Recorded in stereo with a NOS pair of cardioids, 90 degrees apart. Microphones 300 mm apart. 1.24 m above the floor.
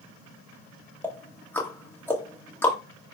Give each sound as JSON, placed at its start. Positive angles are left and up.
{"t": 1.0, "sound": "ticking", "azimuth_deg": 5, "distance_m": 1.6}